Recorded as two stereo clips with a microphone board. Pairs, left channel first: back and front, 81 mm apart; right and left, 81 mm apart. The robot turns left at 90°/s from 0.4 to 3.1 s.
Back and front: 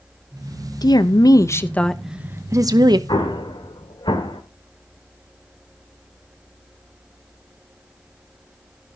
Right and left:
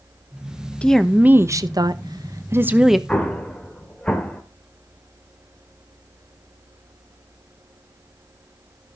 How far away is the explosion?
About 1.6 m.